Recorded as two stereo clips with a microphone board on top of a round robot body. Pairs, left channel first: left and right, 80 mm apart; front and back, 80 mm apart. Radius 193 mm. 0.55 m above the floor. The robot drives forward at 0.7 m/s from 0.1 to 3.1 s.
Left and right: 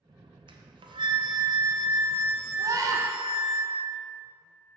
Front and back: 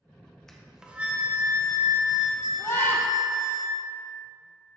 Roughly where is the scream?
Ahead right.